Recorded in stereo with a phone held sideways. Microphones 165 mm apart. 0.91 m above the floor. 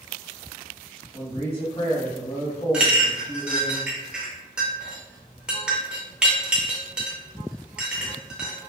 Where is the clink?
5° right (ahead or behind), 0.7 m.